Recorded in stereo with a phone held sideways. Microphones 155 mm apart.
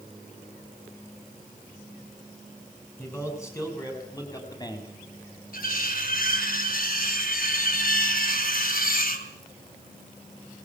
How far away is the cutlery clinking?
About 2.5 m.